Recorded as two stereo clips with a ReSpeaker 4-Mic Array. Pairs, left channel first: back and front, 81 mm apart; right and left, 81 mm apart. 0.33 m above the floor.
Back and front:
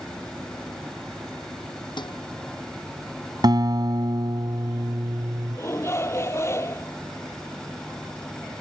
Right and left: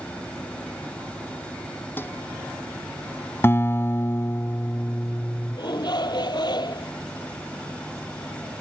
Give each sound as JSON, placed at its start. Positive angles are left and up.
{"t": 2.0, "sound": "dishes clattering", "azimuth_deg": -155}
{"t": 3.4, "sound": "a guitar", "azimuth_deg": -30}
{"t": 5.5, "sound": "a shout", "azimuth_deg": -120}